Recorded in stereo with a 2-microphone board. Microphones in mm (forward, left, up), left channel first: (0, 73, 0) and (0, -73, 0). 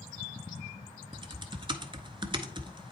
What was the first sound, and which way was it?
Typing on a keyboard, 35° right (ahead or behind).